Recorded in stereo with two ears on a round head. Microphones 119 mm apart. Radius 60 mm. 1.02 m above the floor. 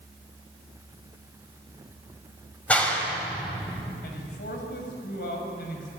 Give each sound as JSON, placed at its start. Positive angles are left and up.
{"t": 2.7, "sound": "a clap", "side_deg": 10, "distance_m": 5.0}
{"t": 4.0, "sound": "a man speaking", "side_deg": 85, "distance_m": 6.5}